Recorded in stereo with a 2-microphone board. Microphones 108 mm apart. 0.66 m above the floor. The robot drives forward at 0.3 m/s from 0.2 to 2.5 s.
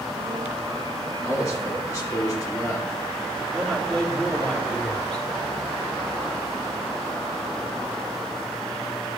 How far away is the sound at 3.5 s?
About 1.9 m.